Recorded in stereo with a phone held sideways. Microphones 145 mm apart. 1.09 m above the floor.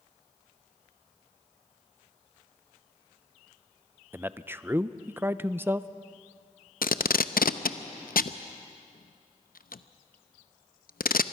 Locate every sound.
4.1 s a man speaking: 15° right (ahead or behind), 0.5 m
6.8 s tape being pulled: 80° left, 0.6 m